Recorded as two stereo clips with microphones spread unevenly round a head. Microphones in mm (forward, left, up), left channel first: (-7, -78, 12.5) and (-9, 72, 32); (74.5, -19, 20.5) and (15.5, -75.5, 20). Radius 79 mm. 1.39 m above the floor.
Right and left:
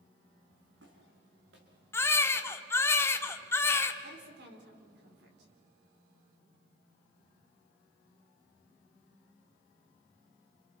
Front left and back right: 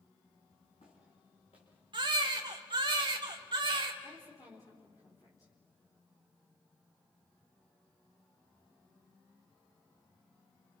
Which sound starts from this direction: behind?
A baby crying, at 1.9 s.